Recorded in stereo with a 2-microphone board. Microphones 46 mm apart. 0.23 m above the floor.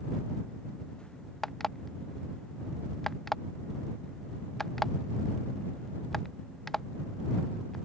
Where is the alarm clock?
10° left (ahead or behind).